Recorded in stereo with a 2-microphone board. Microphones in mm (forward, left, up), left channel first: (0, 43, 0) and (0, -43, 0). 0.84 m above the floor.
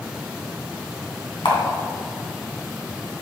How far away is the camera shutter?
About 2 m.